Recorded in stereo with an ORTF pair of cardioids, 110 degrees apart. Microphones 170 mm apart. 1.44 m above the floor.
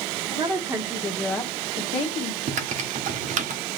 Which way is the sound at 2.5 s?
45° right.